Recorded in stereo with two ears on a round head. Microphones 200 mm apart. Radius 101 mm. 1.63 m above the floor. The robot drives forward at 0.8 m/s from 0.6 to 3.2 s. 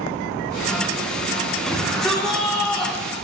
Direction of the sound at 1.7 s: 5° left (ahead or behind).